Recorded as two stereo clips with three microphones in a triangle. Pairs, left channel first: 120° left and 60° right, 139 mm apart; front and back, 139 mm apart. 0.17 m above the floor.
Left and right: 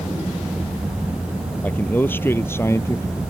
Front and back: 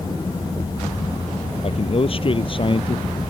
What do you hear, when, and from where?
1.6 s a man speaking: 45° left; by 3.2 s 50° left